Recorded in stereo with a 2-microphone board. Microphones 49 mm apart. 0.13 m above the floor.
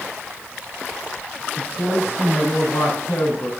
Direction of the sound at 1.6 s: 65° left (ahead or behind).